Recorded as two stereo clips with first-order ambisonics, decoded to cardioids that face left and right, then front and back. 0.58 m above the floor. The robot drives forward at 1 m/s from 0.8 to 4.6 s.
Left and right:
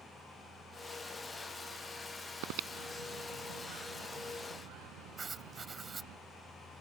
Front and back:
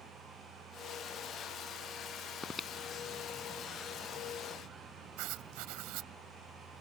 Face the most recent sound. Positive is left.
turn(degrees=-165)